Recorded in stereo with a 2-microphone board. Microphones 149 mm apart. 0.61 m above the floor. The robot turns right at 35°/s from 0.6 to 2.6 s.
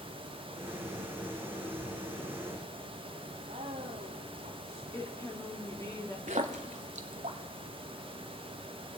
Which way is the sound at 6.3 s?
55° right (ahead or behind).